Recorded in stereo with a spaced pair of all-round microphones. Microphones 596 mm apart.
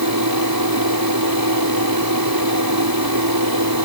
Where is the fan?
35° right (ahead or behind).